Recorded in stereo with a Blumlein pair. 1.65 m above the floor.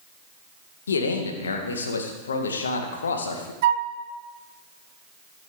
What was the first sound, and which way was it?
A man speaking, 70° left.